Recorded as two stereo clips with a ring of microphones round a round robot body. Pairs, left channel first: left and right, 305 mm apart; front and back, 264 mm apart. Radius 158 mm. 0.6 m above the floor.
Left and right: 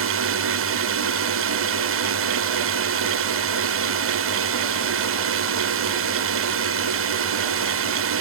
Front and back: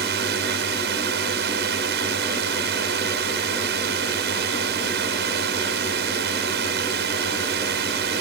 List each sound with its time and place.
0.0 s a drone: 130° right